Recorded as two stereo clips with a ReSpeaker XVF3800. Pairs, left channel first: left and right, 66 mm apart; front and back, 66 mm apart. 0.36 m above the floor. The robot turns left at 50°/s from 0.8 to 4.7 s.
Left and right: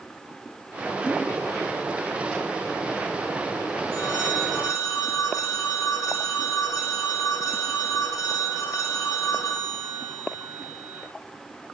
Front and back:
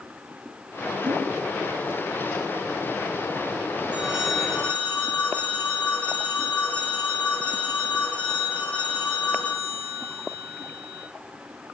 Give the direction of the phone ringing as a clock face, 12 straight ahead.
8 o'clock.